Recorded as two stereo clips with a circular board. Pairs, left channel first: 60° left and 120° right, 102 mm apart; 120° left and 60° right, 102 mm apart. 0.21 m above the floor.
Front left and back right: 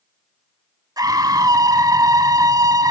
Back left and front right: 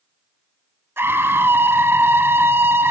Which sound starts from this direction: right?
A scream, at 1.0 s.